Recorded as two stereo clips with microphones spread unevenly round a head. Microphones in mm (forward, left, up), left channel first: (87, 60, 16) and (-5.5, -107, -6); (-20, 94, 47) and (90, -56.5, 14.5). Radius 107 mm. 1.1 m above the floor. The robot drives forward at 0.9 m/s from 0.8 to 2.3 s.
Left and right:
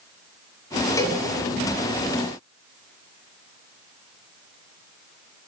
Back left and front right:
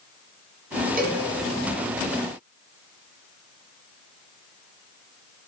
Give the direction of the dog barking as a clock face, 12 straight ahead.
No dog barking in this recording.